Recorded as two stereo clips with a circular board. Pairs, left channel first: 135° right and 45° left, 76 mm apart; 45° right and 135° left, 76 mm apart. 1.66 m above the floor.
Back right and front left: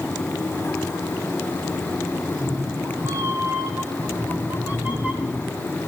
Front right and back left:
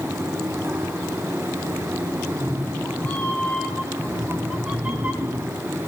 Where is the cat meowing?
15° left, 3 m; by 5.7 s 125° left, 1.7 m.